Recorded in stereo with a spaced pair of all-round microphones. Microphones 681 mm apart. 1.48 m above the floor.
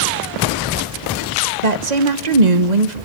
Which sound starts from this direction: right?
A woman speaking, at 1.6 s.